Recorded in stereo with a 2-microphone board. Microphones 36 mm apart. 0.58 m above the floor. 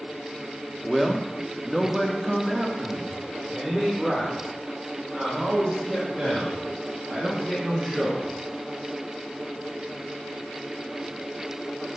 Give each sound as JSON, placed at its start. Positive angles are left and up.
{"t": 0.8, "sound": "a man speaking", "side_deg": 0, "distance_m": 1.3}